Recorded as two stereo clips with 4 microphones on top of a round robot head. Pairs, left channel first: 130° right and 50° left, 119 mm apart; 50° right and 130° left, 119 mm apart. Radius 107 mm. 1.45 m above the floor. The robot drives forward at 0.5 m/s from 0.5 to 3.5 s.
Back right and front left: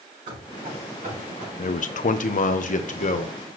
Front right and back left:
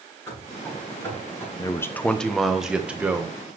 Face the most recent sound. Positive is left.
turn(degrees=-155)